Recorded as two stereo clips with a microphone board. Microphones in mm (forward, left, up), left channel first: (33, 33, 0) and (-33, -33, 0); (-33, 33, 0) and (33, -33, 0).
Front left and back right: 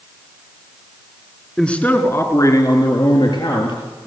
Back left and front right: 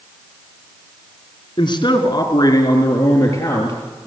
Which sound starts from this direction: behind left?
A man speaking, at 1.6 s.